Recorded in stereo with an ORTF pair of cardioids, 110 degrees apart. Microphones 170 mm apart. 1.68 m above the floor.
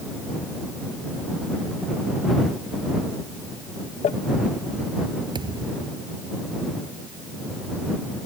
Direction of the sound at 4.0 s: 45° left.